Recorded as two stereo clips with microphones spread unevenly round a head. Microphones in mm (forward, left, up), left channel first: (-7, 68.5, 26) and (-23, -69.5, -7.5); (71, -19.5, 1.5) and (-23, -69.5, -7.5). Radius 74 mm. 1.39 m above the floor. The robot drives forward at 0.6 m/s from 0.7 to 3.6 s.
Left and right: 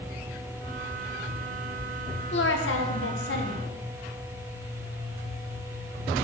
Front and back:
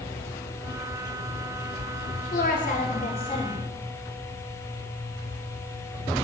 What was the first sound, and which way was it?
A woman speaking, 60° left.